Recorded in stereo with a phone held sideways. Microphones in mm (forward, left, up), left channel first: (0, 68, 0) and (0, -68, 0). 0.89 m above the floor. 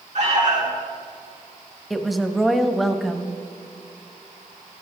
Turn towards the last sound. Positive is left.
turn(degrees=0)  # may be behind; listen again after turning